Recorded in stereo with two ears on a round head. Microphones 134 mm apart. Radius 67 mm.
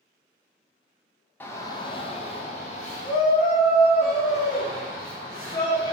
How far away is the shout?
About 0.6 m.